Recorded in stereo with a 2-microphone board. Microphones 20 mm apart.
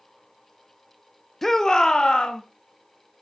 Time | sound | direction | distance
1.4 | a shout | 10° left (ahead or behind) | 0.6 m